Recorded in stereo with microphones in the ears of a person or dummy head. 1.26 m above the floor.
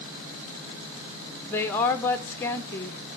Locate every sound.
1.5 s a woman speaking: 10° left (ahead or behind), 1.0 m